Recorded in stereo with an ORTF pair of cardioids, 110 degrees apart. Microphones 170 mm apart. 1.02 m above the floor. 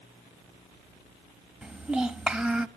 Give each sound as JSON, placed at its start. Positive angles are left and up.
{"t": 1.6, "sound": "a child speaking", "azimuth_deg": -5, "distance_m": 1.2}